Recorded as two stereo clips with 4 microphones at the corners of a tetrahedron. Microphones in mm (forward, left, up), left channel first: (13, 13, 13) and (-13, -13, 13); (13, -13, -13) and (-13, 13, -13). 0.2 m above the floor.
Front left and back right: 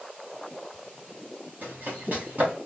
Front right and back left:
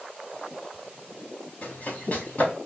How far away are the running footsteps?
About 3 m.